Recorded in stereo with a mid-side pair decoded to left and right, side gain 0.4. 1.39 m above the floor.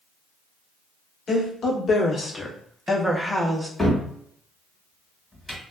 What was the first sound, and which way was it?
A woman speaking, 60° left.